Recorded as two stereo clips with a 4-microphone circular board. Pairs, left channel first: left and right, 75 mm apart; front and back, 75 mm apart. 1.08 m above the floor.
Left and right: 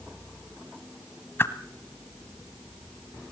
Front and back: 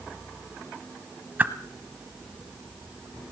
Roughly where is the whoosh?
Behind left.